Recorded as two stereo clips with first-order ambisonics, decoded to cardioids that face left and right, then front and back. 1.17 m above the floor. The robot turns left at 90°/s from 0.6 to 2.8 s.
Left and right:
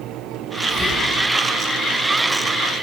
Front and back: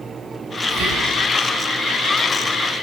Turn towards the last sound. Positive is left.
turn(degrees=-10)